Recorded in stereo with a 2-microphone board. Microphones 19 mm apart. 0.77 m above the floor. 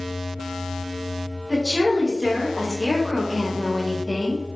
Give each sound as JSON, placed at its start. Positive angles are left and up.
{"t": 1.5, "sound": "a woman speaking", "side_deg": -15, "distance_m": 2.0}